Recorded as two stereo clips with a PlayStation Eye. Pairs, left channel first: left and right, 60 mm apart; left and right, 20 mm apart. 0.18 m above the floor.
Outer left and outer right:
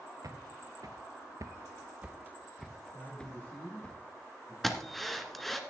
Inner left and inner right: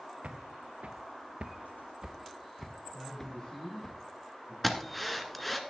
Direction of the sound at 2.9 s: 30° left (ahead or behind).